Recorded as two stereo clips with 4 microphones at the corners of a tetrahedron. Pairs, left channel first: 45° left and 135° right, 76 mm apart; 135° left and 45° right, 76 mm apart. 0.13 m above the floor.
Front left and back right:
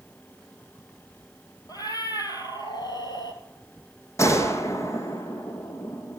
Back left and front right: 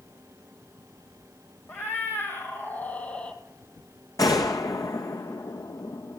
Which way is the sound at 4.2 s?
95° left.